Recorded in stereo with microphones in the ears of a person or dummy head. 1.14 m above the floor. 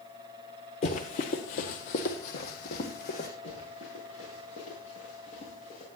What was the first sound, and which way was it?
Running footsteps, 30° left (ahead or behind).